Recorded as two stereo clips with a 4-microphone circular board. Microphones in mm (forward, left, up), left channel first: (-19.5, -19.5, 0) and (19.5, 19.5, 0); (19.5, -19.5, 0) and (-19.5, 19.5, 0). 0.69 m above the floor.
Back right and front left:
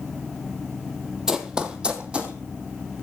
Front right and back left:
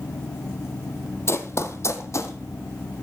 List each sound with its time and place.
1.3 s running footsteps: 35° right, 1.0 m; by 2.4 s 25° right, 1.7 m